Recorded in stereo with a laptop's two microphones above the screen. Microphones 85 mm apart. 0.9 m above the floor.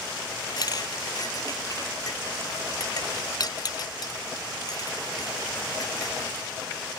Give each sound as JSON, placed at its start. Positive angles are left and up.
{"t": 0.6, "sound": "a clink", "side_deg": 50}